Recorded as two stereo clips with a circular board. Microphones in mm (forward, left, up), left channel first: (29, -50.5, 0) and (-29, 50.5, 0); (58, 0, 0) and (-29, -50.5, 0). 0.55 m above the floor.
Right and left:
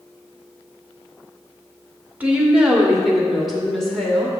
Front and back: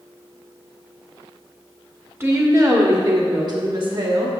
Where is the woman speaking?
Straight behind, 1.3 m; by 4.3 s 140° right, 2 m.